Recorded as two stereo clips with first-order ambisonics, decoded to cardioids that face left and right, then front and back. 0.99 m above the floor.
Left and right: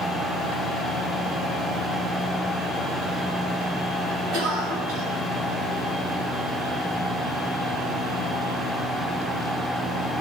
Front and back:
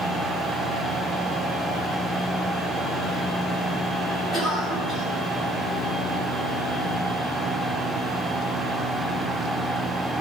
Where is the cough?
105° right, 6.5 m.